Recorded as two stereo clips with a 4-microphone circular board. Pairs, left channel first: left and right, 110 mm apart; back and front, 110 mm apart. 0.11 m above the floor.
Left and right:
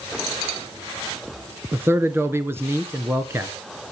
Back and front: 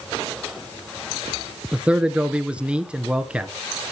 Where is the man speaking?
65° right, 1.2 m.